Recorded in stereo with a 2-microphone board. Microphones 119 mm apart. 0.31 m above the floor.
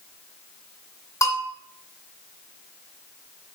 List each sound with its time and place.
1.2 s a bell: 30° left (ahead or behind), 1.2 m